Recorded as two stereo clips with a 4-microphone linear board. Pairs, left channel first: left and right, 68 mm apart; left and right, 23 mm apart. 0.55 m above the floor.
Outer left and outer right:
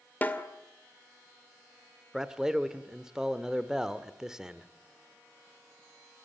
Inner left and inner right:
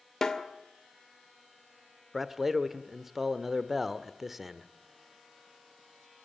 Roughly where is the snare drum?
Left.